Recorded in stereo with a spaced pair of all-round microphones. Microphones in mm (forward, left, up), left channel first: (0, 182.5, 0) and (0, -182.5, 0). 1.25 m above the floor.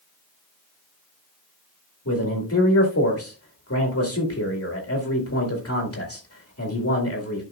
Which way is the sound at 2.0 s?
40° left (ahead or behind).